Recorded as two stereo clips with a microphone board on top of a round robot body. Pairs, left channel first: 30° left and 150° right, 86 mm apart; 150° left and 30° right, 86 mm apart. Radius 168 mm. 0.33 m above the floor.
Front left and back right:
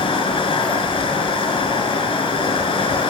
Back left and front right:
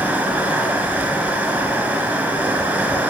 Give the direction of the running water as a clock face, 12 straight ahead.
10 o'clock.